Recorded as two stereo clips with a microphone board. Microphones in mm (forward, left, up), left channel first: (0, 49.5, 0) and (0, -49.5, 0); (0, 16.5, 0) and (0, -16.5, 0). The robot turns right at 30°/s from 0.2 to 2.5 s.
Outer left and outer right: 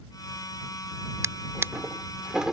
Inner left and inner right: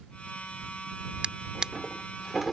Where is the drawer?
30° right (ahead or behind); by 2.5 s 5° right (ahead or behind).